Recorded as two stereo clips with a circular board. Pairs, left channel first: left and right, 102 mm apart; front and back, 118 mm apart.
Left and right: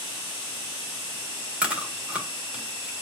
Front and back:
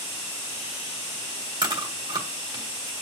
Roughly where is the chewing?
Behind.